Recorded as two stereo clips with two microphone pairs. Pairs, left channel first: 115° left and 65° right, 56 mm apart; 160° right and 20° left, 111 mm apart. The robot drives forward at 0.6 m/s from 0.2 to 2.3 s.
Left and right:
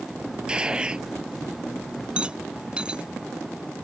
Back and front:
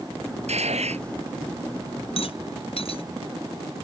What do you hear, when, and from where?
0.5 s a gunshot: 10° left
2.2 s a rattle: 135° right